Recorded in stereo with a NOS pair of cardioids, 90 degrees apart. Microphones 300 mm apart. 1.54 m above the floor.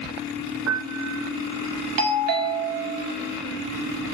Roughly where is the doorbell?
Ahead right.